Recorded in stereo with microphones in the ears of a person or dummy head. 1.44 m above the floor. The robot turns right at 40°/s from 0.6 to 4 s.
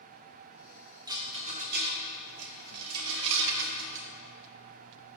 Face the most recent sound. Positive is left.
turn(degrees=-40)  # may be behind; listen again after turning